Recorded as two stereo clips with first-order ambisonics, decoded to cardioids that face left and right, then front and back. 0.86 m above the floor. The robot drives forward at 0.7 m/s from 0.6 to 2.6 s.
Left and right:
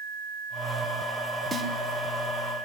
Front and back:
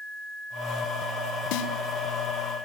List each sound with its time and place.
1.5 s a snare drum: 5° right, 2.5 m